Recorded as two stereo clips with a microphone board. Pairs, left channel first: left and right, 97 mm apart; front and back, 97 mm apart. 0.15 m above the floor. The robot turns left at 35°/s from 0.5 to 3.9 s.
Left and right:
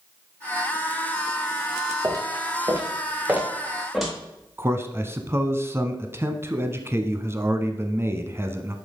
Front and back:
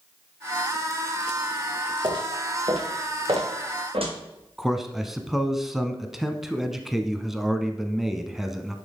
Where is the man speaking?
95° right, 1.1 m.